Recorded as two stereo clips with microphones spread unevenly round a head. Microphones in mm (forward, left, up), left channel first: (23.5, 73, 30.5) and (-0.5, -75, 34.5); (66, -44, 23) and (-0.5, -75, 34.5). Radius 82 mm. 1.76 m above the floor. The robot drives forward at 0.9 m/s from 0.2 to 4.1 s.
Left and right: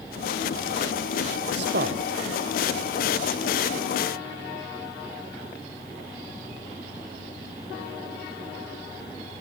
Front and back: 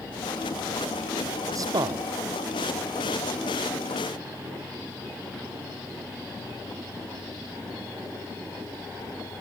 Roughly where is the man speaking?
Behind right.